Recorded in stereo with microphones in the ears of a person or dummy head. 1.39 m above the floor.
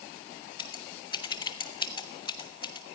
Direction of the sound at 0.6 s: 30° left (ahead or behind).